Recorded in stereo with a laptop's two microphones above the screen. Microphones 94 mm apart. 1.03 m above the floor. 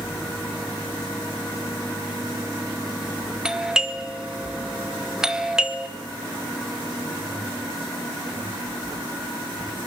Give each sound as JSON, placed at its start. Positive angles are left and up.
{"t": 3.5, "sound": "a doorbell", "side_deg": -10, "distance_m": 1.3}